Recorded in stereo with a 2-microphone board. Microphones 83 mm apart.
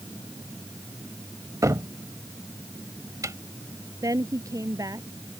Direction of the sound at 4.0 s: 45° right (ahead or behind).